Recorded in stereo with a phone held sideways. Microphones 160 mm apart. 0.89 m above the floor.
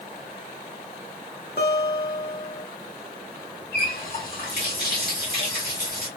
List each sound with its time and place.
1.6 s a guitar: 80° left, 1.4 m
3.7 s a running tap: 70° left (ahead or behind), 2 m